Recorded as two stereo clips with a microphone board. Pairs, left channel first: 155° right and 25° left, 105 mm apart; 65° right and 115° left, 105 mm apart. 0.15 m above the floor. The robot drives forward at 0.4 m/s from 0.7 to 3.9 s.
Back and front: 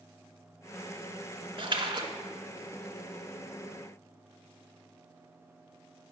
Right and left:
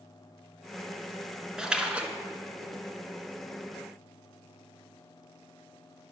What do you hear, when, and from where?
1.6 s a splash: 30° left, 0.9 m; by 2.1 s 40° left, 0.8 m